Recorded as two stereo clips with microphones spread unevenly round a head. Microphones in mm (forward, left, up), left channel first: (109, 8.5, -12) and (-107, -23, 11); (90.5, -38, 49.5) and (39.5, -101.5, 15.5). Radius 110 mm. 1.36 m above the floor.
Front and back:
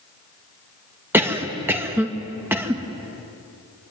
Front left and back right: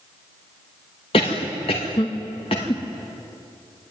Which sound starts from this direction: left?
A cough, at 1.1 s.